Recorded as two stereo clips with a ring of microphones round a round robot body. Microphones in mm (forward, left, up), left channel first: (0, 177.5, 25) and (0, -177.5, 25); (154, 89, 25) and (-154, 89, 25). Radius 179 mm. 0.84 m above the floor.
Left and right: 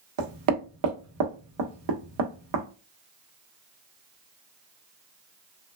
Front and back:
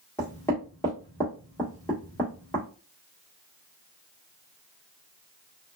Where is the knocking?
85° right, 1.0 m.